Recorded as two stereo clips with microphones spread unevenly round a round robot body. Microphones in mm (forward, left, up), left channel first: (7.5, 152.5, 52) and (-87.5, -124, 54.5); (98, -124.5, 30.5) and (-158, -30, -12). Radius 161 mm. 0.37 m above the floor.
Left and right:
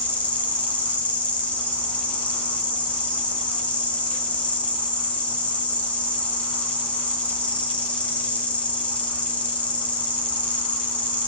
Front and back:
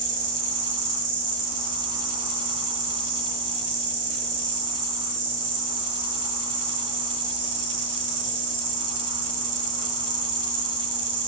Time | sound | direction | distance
0.0 | an insect | 155° left | 1.8 m